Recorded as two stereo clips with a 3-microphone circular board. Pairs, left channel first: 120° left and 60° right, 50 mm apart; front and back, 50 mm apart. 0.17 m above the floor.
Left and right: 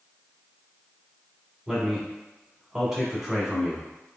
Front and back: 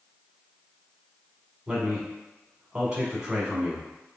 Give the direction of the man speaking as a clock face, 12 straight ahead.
4 o'clock.